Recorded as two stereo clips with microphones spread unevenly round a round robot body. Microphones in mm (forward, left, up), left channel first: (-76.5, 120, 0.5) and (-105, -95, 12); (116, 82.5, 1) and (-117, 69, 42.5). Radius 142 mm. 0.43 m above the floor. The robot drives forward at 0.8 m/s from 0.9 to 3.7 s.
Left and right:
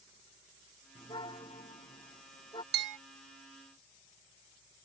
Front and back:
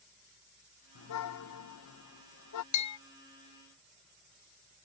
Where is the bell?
50° right; by 3.0 s 65° right.